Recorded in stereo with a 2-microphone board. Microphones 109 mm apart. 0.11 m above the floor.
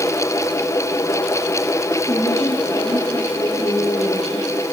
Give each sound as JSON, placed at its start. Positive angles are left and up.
{"t": 2.1, "sound": "a woman speaking", "side_deg": 35, "distance_m": 10.0}